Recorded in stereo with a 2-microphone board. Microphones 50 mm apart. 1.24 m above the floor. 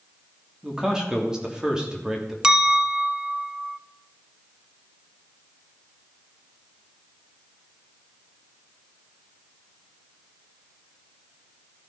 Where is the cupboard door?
I don't hear a cupboard door.